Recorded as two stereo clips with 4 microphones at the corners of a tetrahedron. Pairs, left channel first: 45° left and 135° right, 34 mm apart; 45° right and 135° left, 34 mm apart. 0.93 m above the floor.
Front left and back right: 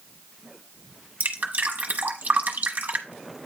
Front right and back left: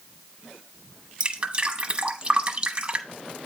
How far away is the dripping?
About 1.1 m.